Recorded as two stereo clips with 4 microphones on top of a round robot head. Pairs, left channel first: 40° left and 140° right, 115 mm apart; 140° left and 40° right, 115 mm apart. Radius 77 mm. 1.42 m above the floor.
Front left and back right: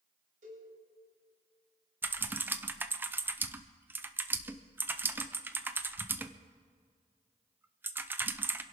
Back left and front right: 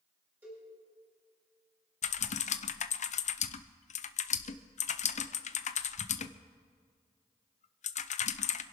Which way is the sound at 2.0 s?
150° left.